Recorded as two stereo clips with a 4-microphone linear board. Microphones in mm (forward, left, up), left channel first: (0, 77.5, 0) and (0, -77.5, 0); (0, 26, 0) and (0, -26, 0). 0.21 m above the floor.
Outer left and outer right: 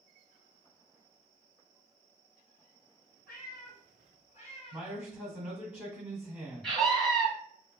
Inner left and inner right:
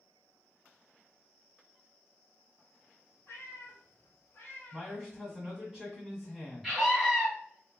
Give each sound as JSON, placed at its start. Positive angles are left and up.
{"t": 3.3, "sound": "a cat meowing", "side_deg": 75, "distance_m": 1.3}
{"t": 4.7, "sound": "a man speaking", "side_deg": -5, "distance_m": 1.3}
{"t": 6.6, "sound": "a scream", "side_deg": 5, "distance_m": 1.2}